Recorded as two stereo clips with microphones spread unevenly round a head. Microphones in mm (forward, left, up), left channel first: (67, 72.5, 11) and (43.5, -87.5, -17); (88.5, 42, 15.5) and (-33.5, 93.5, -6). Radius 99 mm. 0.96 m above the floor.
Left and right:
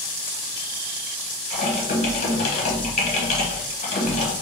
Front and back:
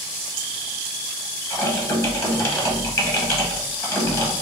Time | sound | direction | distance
1.5 | typing on a keyboard | 45° left | 0.8 m